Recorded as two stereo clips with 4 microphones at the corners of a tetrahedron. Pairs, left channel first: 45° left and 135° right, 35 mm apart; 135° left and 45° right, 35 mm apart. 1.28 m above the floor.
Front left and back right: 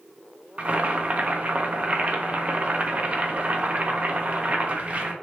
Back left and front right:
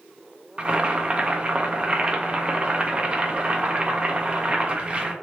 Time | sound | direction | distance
0.6 | boiling | 95° right | 0.5 m